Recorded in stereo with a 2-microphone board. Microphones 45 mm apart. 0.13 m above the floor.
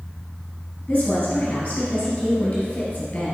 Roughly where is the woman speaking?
Left.